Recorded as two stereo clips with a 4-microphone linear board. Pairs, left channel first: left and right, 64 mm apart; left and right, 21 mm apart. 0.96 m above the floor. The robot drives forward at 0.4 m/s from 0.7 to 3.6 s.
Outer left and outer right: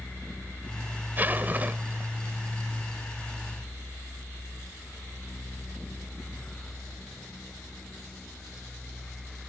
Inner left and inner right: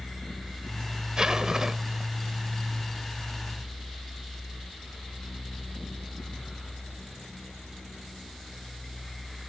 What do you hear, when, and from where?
1.2 s a zipper: 30° right (ahead or behind)